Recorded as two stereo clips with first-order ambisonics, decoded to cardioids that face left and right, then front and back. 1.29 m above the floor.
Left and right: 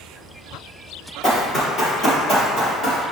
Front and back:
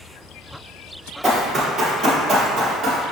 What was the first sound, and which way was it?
Running footsteps, 95° left.